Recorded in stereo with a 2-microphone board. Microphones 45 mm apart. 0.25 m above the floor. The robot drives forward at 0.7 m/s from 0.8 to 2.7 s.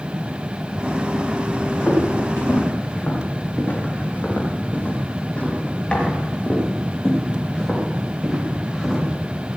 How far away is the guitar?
No guitar in this recording.